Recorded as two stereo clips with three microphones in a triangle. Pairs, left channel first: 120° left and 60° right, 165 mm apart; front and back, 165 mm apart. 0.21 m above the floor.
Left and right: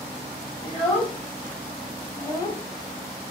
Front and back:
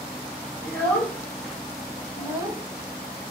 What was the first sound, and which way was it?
A child speaking, 35° left.